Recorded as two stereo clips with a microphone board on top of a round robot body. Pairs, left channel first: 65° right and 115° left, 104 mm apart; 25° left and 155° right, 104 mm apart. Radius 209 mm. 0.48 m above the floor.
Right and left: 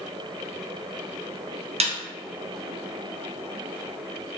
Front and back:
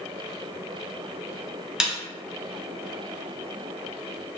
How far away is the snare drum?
About 0.6 m.